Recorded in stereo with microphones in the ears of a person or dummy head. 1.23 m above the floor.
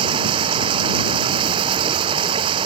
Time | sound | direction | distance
0.0 | running water | 35° right (ahead or behind) | ?